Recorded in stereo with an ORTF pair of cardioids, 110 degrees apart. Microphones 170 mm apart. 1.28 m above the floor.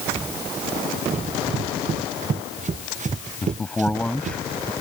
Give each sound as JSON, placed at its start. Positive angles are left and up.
{"t": 1.1, "sound": "running footsteps", "azimuth_deg": -45}
{"t": 3.4, "sound": "a man speaking", "azimuth_deg": 5}